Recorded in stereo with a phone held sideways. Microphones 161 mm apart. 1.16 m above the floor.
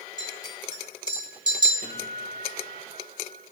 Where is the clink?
30° right (ahead or behind), 5 m.